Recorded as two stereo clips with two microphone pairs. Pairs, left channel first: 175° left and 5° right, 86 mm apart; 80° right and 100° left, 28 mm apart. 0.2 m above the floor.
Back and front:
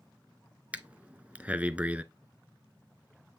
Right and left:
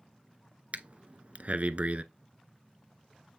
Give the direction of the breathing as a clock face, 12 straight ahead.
10 o'clock.